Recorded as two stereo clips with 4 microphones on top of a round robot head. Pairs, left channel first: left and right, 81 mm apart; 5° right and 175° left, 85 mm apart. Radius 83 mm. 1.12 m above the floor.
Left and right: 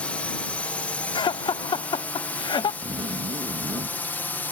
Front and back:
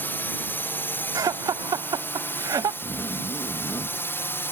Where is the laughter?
125° left.